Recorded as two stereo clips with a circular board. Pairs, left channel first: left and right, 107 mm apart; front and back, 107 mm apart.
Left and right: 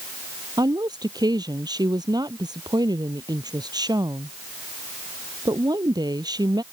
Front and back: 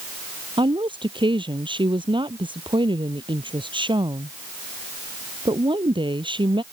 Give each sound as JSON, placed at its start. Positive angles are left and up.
{"t": 0.6, "sound": "a woman speaking", "azimuth_deg": -140}